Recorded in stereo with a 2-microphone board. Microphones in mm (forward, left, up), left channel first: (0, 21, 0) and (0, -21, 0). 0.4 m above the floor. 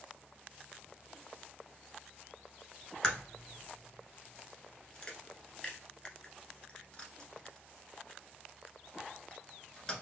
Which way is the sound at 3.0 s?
25° left (ahead or behind).